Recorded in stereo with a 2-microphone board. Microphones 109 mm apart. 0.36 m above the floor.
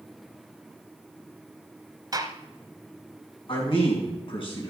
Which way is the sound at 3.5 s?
55° left (ahead or behind).